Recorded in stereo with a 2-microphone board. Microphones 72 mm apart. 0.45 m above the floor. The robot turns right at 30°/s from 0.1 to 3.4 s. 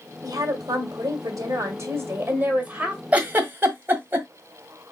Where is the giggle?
20° right (ahead or behind), 1.4 m; by 4.3 s 25° right (ahead or behind), 1.4 m.